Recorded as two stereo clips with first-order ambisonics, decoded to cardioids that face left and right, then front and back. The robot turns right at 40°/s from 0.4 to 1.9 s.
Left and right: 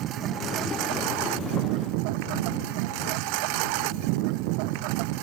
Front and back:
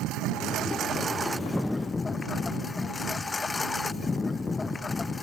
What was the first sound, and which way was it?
A lawn mower, 140° right.